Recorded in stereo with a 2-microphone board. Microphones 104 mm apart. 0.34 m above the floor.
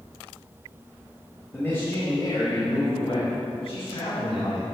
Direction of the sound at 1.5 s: 20° left (ahead or behind).